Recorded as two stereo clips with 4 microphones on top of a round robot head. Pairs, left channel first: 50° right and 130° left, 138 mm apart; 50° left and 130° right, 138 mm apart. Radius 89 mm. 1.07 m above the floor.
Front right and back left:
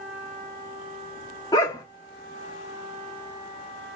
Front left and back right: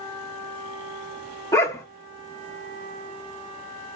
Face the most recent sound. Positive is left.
turn(degrees=-5)